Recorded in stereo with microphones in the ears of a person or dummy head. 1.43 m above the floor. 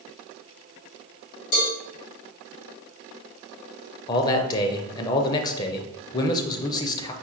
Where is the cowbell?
70° left (ahead or behind), 2.0 m.